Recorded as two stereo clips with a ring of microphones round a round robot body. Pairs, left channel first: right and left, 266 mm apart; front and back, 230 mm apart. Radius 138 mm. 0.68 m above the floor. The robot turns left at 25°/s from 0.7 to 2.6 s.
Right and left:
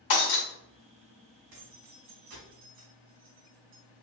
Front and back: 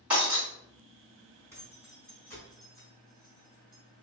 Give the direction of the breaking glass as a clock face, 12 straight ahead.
3 o'clock.